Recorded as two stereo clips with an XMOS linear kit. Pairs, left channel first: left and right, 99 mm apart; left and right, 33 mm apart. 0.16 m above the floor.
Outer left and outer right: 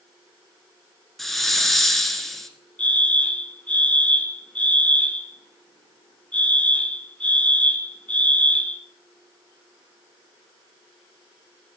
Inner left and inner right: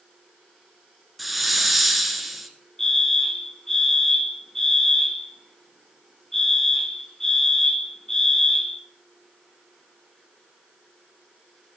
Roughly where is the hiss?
Centre.